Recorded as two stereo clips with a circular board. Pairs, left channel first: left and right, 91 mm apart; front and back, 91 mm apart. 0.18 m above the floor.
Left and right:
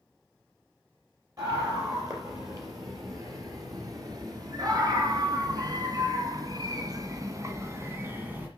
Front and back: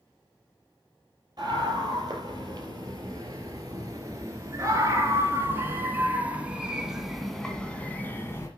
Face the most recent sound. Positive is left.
turn(degrees=-35)